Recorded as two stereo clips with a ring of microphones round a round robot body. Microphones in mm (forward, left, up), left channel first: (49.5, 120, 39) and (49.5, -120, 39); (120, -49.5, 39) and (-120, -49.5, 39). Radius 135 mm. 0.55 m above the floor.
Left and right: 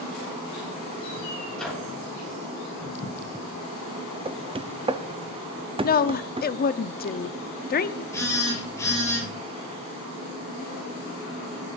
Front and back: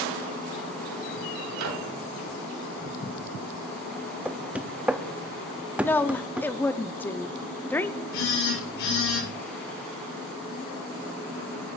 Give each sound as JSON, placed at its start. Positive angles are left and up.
{"t": 1.5, "sound": "a microwave", "azimuth_deg": 175, "distance_m": 3.0}
{"t": 4.2, "sound": "knocking", "azimuth_deg": -105, "distance_m": 0.7}
{"t": 5.8, "sound": "a woman speaking", "azimuth_deg": 80, "distance_m": 0.7}
{"t": 8.1, "sound": "a phone buzzing", "azimuth_deg": 10, "distance_m": 8.5}